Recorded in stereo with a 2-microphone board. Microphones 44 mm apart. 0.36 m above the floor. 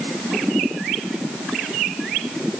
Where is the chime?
No chime in this recording.